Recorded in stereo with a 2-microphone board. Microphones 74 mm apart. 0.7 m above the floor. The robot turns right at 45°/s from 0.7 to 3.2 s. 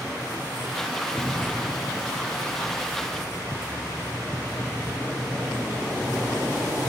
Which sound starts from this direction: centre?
An explosion, at 1.1 s.